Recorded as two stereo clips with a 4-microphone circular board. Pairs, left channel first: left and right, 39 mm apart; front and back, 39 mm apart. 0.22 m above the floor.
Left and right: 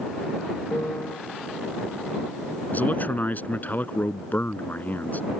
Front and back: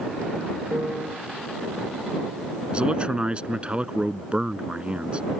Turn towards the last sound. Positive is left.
turn(degrees=125)